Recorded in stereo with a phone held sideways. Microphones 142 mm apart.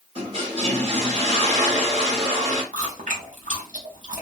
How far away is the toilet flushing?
About 1.1 m.